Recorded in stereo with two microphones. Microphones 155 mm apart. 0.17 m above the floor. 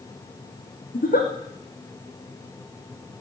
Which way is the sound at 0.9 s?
65° left (ahead or behind).